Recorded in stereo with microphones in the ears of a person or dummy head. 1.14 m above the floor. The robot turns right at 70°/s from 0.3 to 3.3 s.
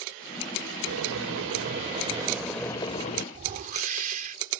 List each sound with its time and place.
0.9 s boiling: 115° right; by 3.2 s 50° left
3.3 s a whoosh: 45° right (ahead or behind)